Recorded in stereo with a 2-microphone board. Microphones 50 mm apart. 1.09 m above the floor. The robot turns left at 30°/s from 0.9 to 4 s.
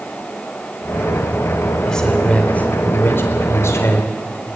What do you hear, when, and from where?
1.9 s a man speaking: 170° left, 4.5 m; by 4.1 s 105° left, 4.5 m